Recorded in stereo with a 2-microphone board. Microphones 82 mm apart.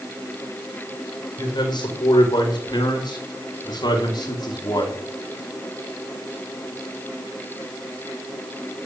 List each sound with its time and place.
1.4 s a man speaking: 55° left (ahead or behind), 5.5 m; by 5.0 s 50° left (ahead or behind), 3.5 m